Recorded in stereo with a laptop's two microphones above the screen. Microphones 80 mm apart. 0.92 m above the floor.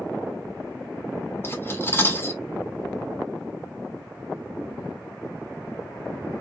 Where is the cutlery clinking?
30° left (ahead or behind), 1.4 m.